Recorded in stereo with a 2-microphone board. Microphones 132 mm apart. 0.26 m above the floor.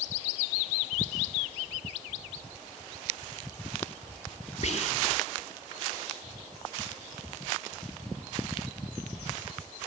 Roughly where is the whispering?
Left.